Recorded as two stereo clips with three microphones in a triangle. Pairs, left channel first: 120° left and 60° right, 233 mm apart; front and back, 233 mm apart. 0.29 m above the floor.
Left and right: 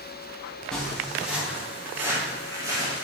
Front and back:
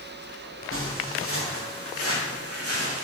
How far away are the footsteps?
About 4 m.